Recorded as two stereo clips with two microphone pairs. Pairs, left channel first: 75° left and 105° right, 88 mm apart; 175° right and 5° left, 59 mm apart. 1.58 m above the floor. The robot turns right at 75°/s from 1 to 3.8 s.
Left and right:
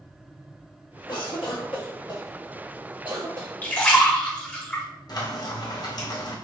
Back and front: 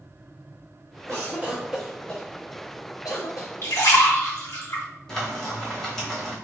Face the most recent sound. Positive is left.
turn(degrees=105)